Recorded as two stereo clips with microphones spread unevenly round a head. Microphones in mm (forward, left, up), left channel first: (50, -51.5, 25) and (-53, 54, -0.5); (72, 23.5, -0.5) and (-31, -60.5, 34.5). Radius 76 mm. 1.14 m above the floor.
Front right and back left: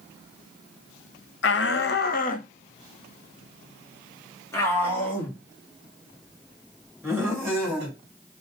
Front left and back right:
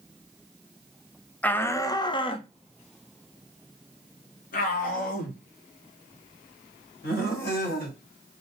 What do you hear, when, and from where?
1.4 s a shout: 40° right, 1.0 m; by 8.0 s 40° left, 4 m